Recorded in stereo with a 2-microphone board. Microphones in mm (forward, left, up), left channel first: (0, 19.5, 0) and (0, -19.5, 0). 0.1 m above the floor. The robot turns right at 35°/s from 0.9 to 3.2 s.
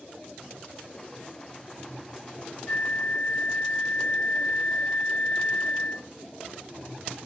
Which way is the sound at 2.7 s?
40° left (ahead or behind).